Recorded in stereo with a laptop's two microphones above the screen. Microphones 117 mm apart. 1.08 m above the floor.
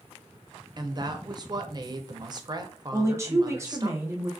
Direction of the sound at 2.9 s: 25° right (ahead or behind).